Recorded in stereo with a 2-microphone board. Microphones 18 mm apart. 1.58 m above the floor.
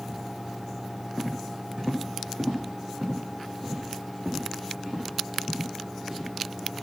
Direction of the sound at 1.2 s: 65° right (ahead or behind).